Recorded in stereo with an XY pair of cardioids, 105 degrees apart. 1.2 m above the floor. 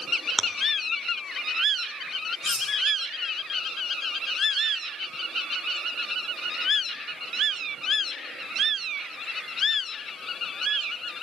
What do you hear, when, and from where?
0.4 s chewing: 15° left, 1.7 m
2.4 s cutlery clinking: 40° left, 6 m